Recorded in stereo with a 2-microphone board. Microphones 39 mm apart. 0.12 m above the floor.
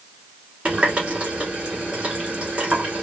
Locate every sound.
0.7 s a running tap: 25° right (ahead or behind), 1.0 m